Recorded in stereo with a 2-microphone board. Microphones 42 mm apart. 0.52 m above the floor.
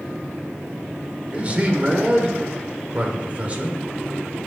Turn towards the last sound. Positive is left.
turn(degrees=-30)  # may be behind; listen again after turning